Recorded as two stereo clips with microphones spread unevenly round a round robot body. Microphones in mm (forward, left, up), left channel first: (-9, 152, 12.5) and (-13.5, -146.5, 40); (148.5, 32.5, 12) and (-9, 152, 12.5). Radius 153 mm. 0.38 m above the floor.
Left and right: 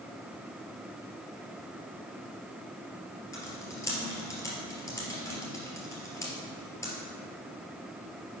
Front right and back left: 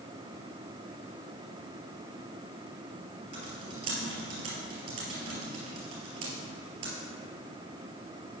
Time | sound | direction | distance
3.3 | typing on a keyboard | 170° left | 2.5 m